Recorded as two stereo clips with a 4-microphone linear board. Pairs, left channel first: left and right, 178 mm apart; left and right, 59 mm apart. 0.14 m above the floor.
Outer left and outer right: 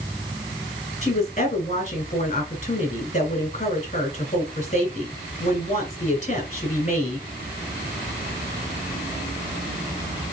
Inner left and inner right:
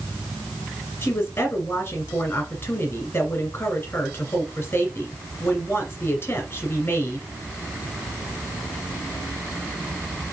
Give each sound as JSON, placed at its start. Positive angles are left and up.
{"t": 1.0, "sound": "a woman speaking", "side_deg": 35, "distance_m": 2.0}